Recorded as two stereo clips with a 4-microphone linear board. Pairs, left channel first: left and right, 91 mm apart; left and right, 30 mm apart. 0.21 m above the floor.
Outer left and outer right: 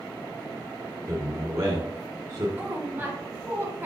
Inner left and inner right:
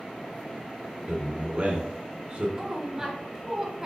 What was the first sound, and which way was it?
A man speaking, 35° right (ahead or behind).